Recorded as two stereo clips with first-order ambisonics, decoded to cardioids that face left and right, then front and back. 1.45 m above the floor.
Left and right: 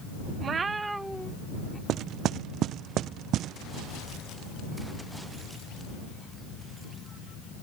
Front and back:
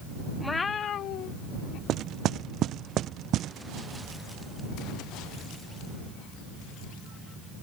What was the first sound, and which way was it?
A cat meowing, 80° right.